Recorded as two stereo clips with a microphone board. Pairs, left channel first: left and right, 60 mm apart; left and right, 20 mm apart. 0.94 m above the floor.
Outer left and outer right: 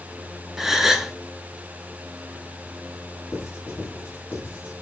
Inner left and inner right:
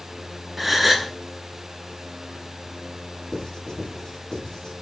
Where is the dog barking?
I don't hear a dog barking.